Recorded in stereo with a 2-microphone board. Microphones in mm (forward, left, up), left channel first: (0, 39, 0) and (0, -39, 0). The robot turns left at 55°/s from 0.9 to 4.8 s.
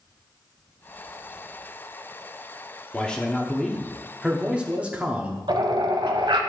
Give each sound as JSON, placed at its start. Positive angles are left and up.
{"t": 2.9, "sound": "a man speaking", "side_deg": 15, "distance_m": 0.8}
{"t": 5.5, "sound": "a bird", "side_deg": -85, "distance_m": 0.8}